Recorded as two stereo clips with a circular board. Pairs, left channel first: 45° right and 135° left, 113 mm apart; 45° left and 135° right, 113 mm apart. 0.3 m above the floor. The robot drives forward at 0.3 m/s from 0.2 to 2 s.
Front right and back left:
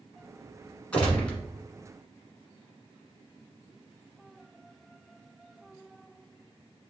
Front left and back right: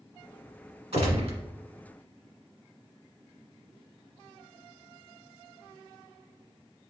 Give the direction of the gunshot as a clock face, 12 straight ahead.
4 o'clock.